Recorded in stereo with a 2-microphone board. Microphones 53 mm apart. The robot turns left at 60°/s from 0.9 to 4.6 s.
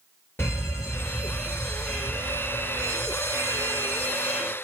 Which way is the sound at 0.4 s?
60° left.